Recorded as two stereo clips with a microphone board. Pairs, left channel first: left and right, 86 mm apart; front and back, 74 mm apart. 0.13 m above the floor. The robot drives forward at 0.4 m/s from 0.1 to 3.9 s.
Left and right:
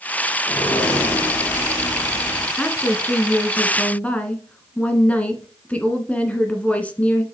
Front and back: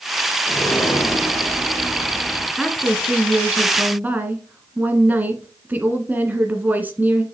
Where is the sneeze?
I don't hear a sneeze.